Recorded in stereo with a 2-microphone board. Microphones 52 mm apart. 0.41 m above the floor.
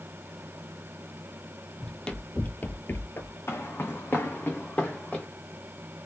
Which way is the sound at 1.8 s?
10° left (ahead or behind).